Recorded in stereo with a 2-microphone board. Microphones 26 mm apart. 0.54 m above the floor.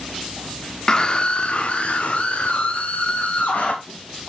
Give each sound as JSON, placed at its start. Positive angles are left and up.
{"t": 0.9, "sound": "a scream", "side_deg": 30, "distance_m": 1.2}